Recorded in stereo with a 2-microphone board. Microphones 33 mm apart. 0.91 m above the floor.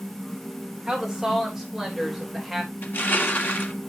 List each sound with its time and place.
0.9 s a woman speaking: 20° right (ahead or behind), 3 m; by 2.7 s 5° right (ahead or behind), 4 m
2.8 s crushing: 80° left, 1.7 m